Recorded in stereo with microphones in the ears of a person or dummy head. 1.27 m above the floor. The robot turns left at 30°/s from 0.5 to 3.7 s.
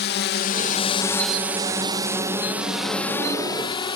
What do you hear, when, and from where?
0.0 s a drone: 55° left (ahead or behind); by 4.0 s 20° left (ahead or behind)